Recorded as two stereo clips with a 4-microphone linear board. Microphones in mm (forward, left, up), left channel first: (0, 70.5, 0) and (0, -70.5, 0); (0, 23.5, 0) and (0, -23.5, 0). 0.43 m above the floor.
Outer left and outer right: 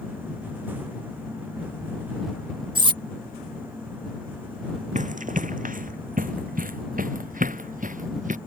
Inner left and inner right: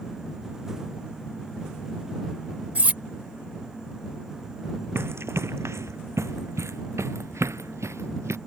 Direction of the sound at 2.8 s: 35° right (ahead or behind).